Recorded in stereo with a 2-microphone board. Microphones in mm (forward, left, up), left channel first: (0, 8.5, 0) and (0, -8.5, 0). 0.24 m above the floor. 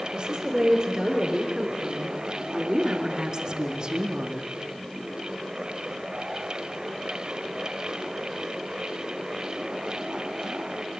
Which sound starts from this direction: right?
A woman speaking, at 0.1 s.